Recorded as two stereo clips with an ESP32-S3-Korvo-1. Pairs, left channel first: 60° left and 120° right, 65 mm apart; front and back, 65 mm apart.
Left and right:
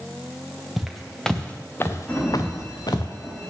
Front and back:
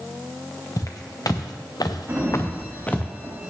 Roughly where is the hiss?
No hiss in this recording.